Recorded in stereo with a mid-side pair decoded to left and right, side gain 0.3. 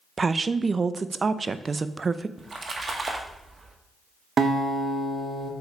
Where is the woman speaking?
45° right, 0.6 m.